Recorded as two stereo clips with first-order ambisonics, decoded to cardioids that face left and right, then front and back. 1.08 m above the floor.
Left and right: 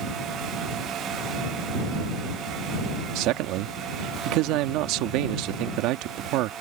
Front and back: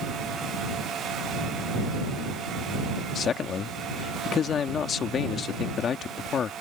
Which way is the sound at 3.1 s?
60° right.